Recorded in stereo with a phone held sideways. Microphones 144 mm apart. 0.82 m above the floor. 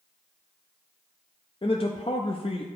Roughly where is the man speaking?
Left.